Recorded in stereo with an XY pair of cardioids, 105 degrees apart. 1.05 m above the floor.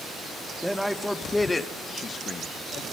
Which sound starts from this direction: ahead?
A man speaking, at 0.6 s.